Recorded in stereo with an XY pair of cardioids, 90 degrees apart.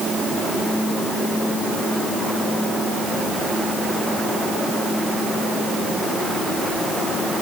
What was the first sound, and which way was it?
Only background noise.